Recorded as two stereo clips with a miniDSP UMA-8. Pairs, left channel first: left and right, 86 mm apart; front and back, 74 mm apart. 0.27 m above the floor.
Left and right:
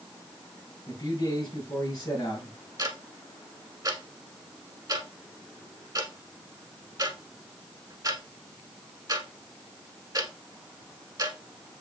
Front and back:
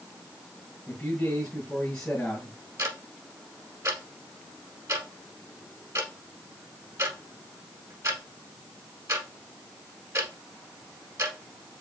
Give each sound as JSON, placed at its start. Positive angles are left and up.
{"t": 0.9, "sound": "a man speaking", "azimuth_deg": 65, "distance_m": 2.0}
{"t": 2.8, "sound": "ticking", "azimuth_deg": -135, "distance_m": 1.1}